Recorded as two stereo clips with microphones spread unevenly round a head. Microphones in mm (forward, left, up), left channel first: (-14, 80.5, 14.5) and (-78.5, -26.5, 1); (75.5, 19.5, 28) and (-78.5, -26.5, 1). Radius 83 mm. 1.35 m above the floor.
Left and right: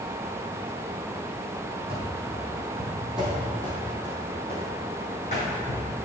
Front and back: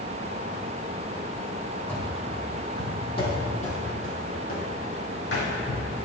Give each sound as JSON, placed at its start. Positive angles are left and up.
{"t": 1.9, "sound": "running footsteps", "azimuth_deg": -60, "distance_m": 3.5}